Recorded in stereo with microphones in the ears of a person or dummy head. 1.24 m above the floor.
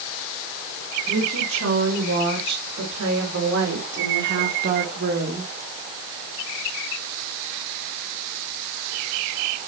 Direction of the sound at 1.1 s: 85° right.